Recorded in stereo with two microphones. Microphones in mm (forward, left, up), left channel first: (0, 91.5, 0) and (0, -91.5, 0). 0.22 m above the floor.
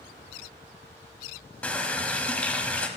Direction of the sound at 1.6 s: 5° left (ahead or behind).